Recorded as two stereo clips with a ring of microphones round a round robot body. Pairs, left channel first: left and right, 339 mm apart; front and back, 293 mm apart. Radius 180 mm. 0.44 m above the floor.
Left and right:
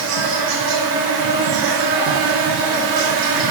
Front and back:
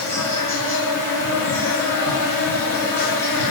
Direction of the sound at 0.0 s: 80° right.